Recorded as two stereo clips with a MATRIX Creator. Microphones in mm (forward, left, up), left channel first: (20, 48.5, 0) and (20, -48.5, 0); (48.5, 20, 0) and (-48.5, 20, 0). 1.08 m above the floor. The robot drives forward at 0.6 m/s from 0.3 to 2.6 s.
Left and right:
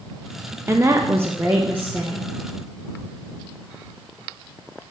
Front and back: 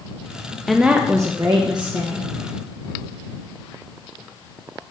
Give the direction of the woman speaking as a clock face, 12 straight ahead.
3 o'clock.